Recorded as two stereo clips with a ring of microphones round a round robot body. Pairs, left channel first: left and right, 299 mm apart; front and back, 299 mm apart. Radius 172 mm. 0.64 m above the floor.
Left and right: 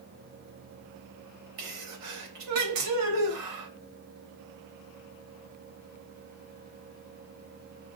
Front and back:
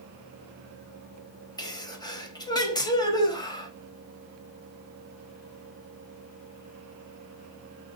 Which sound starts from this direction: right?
A sneeze, at 1.6 s.